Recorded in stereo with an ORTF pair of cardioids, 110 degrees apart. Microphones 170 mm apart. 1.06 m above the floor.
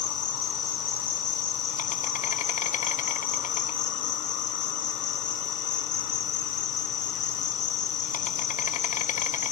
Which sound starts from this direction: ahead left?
An insect, at 0.0 s.